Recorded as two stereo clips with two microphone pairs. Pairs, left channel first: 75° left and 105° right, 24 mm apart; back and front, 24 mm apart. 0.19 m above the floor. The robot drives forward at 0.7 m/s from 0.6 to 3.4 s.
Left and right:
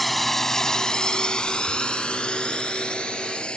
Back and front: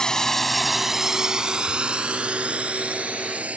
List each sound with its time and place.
0.0 s a drone: 155° left; by 3.6 s 30° left